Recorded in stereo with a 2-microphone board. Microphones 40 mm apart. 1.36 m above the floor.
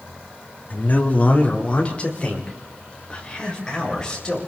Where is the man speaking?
45° left (ahead or behind), 3 m; by 4.4 s 20° left (ahead or behind), 7.5 m.